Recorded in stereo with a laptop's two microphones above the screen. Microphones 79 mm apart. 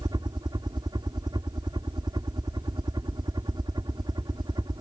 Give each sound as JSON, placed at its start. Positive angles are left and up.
{"t": 0.0, "sound": "a helicopter", "side_deg": -65}